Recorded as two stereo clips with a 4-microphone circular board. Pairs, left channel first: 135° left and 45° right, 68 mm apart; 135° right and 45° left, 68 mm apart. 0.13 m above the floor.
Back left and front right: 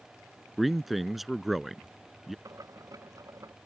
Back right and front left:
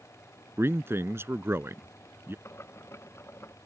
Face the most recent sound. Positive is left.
turn(degrees=-80)